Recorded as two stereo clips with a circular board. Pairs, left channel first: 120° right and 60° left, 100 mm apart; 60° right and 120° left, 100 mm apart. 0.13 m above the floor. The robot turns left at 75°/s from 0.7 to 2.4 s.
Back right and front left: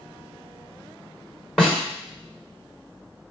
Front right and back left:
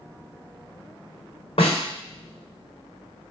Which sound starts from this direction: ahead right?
A snare drum, at 1.6 s.